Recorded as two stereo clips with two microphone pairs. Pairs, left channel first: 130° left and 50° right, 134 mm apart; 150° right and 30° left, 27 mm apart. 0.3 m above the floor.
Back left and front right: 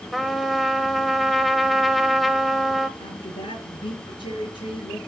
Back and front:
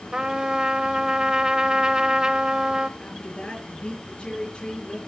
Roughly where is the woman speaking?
Behind.